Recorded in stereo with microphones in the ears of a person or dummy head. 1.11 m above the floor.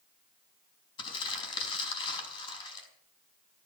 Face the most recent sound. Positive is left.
turn(degrees=30)  # may be behind; listen again after turning